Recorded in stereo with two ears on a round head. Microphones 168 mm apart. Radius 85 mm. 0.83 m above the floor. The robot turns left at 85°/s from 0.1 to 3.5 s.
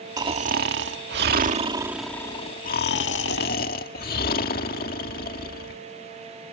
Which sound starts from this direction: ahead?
Snoring, at 0.2 s.